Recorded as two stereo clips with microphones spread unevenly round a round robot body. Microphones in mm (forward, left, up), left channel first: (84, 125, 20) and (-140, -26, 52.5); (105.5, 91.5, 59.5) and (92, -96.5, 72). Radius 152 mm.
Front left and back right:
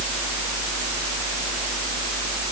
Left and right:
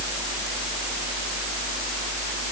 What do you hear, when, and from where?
Only background noise.